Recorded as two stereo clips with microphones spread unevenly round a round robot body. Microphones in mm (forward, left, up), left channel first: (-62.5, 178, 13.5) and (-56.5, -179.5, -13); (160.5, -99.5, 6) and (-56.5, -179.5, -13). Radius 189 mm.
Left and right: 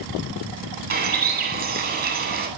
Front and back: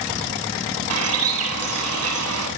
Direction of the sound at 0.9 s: 155° right.